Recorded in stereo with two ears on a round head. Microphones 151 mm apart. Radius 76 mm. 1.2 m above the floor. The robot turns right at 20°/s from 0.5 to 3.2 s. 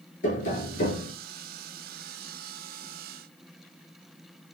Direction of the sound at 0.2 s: 45° left (ahead or behind).